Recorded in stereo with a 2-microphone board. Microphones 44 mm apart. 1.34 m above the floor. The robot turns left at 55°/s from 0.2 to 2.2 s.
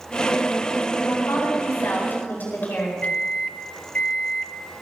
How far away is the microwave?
About 0.8 m.